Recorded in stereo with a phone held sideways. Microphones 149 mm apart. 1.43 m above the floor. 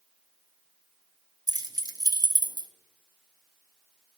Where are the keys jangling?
25° right (ahead or behind), 0.5 m.